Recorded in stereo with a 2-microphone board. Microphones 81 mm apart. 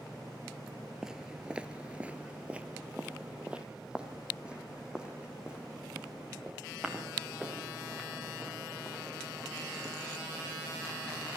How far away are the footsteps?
About 0.8 m.